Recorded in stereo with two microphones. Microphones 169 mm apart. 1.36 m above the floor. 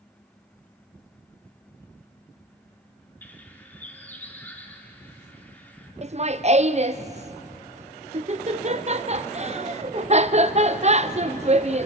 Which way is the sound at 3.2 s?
10° left (ahead or behind).